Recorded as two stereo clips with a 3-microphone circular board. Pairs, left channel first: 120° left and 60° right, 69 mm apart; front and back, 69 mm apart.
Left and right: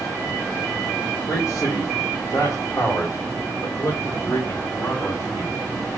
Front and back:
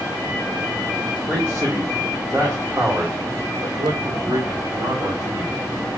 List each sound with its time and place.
1.3 s a man speaking: 115° left, 2.5 m; by 5.6 s 170° left, 3 m